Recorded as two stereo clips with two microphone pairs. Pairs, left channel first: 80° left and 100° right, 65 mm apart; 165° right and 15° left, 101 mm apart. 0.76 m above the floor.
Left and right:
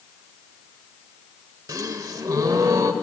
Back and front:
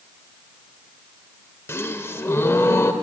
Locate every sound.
1.7 s a gasp: 105° right, 0.8 m